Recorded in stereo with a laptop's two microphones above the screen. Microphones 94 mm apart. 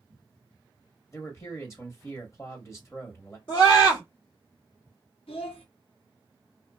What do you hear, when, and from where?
1.1 s a man speaking: 30° left (ahead or behind), 1.1 m
3.5 s a scream: 55° left (ahead or behind), 1.8 m
5.3 s a child speaking: 80° left, 1.0 m